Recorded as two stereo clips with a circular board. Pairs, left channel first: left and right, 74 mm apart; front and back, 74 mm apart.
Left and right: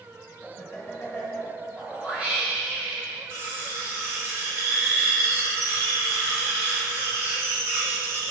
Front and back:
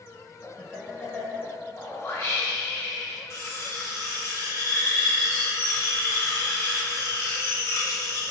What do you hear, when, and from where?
0.4 s laughter: 65° left, 1.1 m
1.8 s a whoosh: 30° right, 1.1 m
3.3 s cutlery clinking: 50° right, 1.4 m